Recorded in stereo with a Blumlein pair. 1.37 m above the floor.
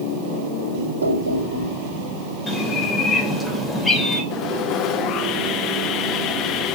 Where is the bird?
10° left, 4 m.